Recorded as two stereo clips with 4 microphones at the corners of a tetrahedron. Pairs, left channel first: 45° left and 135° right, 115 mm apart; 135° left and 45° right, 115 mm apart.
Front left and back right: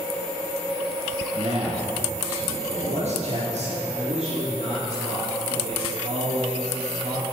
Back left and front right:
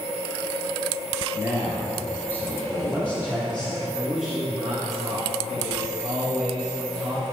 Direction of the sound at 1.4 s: 115° right.